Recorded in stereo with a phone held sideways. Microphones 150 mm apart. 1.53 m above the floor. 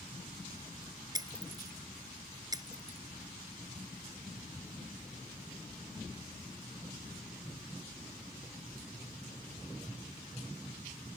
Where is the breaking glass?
25° right (ahead or behind).